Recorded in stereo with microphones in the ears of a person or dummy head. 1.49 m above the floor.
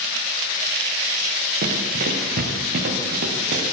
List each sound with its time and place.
1.6 s running footsteps: 50° right (ahead or behind), 5 m; by 3.6 s 60° right (ahead or behind), 5.5 m